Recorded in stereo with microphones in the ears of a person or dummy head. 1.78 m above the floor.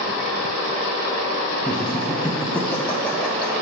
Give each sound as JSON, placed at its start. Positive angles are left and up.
{"t": 1.6, "sound": "laughter", "side_deg": 10, "distance_m": 0.7}